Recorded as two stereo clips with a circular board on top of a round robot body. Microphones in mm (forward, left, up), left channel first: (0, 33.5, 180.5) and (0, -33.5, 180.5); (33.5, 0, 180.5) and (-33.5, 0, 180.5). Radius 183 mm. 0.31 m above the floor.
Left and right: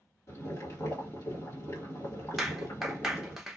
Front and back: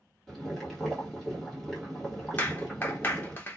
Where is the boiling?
85° left, 2 m.